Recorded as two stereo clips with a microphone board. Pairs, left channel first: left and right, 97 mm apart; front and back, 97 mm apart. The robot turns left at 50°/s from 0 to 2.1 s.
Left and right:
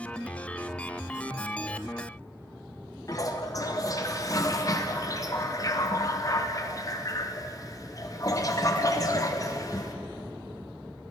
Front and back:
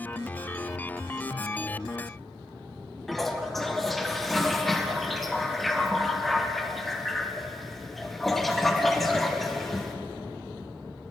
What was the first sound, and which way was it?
A toilet flushing, 85° left.